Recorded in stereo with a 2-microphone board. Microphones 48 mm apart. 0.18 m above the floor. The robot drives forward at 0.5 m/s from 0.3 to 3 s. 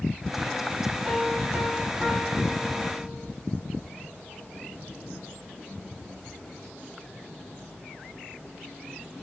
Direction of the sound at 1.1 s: 10° right (ahead or behind).